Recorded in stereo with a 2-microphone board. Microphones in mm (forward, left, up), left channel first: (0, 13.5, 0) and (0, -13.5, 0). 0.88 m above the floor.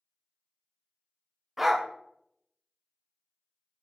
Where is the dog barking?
5° right (ahead or behind), 0.8 m.